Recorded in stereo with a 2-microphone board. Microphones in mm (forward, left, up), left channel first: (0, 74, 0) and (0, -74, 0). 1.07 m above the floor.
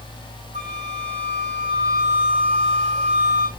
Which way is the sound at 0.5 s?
50° right (ahead or behind).